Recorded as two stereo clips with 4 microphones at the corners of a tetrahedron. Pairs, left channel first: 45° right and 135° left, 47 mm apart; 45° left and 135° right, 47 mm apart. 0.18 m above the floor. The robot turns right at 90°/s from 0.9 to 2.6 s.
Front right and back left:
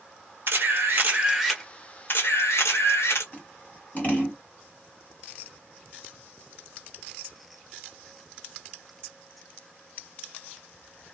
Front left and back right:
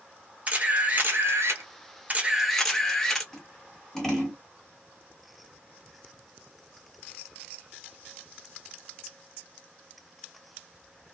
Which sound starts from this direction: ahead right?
Scissors, at 3.3 s.